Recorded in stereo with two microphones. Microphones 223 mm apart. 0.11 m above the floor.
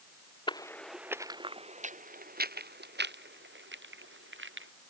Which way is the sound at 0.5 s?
20° left (ahead or behind).